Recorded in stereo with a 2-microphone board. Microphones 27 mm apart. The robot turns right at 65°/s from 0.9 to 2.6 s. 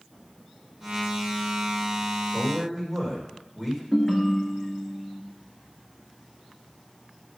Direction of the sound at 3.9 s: 20° left (ahead or behind).